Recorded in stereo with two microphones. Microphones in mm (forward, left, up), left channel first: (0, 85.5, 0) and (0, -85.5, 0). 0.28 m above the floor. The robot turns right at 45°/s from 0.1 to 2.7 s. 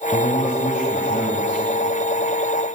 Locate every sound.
0.1 s a man speaking: 60° left, 1.4 m; by 1.6 s 130° left, 1.4 m